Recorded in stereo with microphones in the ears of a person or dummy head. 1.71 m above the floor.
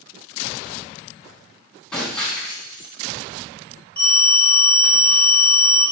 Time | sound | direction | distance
1.9 | breaking glass | 5° left (ahead or behind) | 2.5 m
4.0 | a phone ringing | 30° right (ahead or behind) | 3 m